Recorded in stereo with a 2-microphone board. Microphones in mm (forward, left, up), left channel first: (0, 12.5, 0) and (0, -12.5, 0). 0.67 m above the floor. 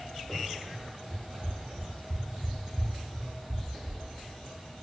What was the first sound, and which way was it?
Running footsteps, 30° right (ahead or behind).